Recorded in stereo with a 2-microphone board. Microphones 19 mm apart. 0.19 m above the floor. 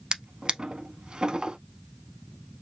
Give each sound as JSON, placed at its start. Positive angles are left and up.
{"t": 0.1, "sound": "a drawer", "side_deg": -50, "distance_m": 0.7}